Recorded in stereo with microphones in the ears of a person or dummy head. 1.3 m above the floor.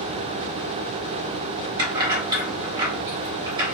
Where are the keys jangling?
30° right (ahead or behind), 1.1 m.